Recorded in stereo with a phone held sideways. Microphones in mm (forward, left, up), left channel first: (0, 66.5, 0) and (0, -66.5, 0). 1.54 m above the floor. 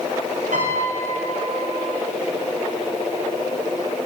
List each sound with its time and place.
0.5 s a piano: 85° right, 7.5 m